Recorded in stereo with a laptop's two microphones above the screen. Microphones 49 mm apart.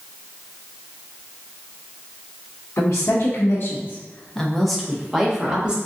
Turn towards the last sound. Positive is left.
turn(degrees=-20)  # may be behind; listen again after turning